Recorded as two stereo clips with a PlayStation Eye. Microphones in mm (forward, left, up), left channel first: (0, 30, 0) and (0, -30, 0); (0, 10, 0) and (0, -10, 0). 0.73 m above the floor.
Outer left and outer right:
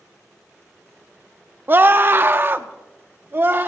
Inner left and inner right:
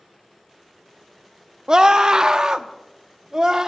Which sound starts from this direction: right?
A scream, at 1.7 s.